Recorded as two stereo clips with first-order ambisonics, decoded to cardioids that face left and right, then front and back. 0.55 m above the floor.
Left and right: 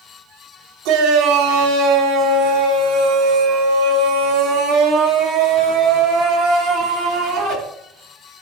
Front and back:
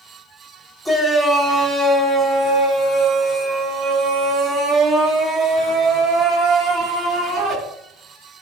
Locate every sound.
0.8 s a shout: 90° right, 3 m; by 7.5 s 120° right, 6.5 m